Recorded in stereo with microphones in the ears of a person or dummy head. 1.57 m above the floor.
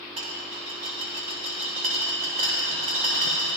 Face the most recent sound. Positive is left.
turn(degrees=-35)  # may be behind; listen again after turning